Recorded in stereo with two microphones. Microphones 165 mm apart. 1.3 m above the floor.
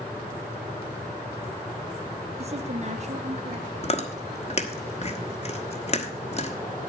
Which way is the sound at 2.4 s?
40° right (ahead or behind).